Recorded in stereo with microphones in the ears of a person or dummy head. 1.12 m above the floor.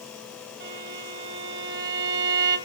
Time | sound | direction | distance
0.6 | a violin | 60° right (ahead or behind) | 5 m